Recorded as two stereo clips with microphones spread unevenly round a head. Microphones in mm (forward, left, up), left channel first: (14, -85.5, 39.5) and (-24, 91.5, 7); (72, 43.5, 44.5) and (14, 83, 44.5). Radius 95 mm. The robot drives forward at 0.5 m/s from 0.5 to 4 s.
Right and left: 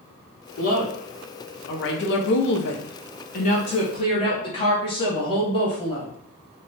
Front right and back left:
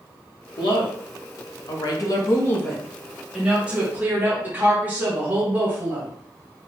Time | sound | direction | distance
0.6 | a woman speaking | 25° right | 1.2 m